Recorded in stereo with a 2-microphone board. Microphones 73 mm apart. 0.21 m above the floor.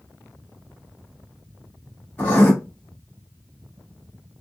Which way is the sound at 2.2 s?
20° left (ahead or behind).